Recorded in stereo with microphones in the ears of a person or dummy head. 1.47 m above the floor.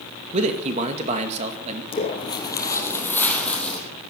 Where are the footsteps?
30° left (ahead or behind), 2.5 m; by 3.8 s 5° left (ahead or behind), 4 m.